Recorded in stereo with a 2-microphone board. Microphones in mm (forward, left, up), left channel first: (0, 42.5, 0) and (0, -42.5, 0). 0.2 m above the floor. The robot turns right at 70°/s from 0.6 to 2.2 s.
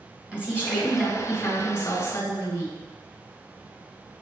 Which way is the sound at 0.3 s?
20° right.